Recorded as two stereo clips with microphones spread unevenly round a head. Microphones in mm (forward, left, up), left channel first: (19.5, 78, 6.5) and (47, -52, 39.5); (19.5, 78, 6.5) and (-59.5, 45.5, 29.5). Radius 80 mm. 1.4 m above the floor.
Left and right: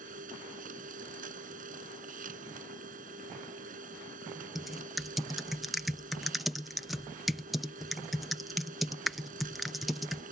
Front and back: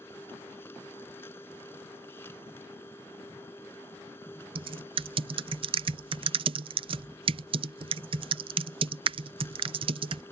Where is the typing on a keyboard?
165° right.